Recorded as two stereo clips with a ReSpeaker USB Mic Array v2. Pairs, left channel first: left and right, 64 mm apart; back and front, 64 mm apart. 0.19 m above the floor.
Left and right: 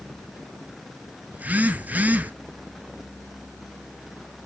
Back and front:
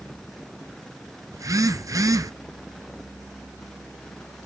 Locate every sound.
1.3 s a phone buzzing: 25° right, 0.7 m